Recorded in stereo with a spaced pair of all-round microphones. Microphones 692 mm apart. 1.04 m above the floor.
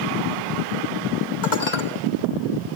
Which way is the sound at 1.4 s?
85° left.